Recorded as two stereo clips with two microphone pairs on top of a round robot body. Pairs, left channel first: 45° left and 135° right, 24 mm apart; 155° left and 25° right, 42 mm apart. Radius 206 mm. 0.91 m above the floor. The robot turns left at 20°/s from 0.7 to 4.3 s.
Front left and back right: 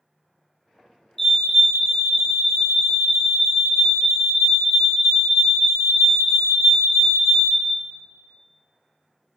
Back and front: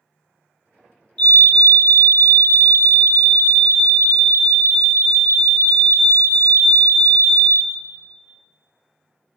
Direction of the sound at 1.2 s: 95° left.